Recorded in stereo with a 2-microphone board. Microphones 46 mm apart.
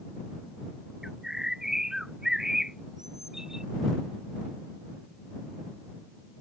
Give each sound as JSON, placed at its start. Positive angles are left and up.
{"t": 1.0, "sound": "a bird", "side_deg": -10}